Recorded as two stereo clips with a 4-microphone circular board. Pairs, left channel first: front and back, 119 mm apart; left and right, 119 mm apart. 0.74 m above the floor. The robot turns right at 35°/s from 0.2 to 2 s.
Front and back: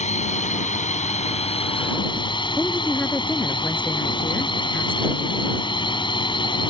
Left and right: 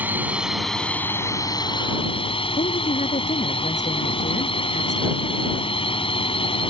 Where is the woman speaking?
80° left.